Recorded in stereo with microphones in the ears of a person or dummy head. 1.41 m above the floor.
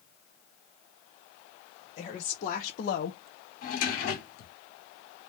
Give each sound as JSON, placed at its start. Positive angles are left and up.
{"t": 2.0, "sound": "a woman speaking", "side_deg": 30, "distance_m": 1.2}
{"t": 3.6, "sound": "a drawer", "side_deg": 55, "distance_m": 1.9}